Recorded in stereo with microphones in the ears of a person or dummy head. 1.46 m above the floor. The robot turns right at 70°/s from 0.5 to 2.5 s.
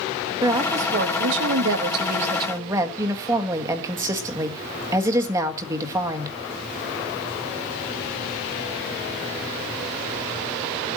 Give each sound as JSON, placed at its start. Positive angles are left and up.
{"t": 0.4, "sound": "a woman speaking", "azimuth_deg": -160, "distance_m": 1.6}